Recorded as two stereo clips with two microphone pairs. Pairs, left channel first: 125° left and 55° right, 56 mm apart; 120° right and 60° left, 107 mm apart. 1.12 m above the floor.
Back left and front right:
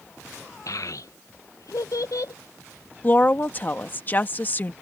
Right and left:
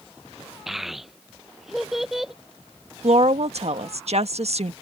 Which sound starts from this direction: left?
A woman speaking, at 3.0 s.